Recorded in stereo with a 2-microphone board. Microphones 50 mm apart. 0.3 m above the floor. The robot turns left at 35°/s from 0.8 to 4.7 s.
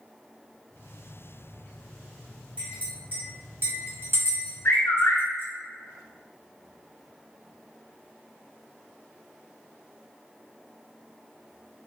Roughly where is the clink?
Right.